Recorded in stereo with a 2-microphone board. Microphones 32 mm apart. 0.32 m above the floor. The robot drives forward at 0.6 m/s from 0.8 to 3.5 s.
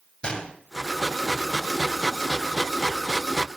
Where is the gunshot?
25° left (ahead or behind), 0.9 m.